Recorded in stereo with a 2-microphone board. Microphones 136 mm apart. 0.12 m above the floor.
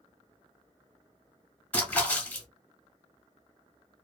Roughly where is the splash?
Centre.